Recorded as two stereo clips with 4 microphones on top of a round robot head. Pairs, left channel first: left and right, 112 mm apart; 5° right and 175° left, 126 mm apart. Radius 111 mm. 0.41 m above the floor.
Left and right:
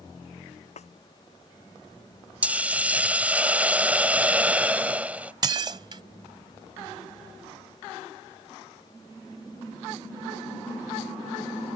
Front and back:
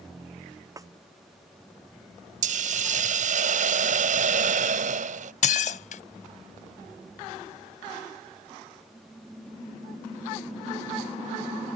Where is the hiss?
170° right.